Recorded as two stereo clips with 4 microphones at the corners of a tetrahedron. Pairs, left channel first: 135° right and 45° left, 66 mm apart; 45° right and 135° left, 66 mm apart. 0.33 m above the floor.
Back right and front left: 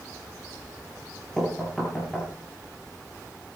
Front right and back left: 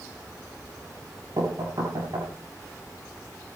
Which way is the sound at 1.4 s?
145° left.